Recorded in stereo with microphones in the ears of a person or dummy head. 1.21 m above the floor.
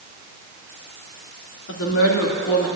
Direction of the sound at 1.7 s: 65° left (ahead or behind).